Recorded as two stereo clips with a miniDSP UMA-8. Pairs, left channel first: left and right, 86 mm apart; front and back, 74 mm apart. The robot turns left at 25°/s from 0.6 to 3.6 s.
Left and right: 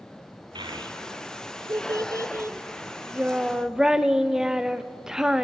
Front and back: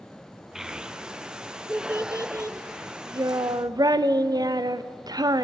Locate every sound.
0.6 s a child speaking: 95° right, 0.6 m; by 5.4 s 170° right, 0.6 m